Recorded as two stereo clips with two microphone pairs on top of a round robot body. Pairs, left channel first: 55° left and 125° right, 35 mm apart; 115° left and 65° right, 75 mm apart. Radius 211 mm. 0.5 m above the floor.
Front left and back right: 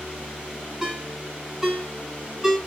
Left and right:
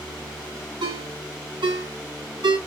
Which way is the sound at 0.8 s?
55° right.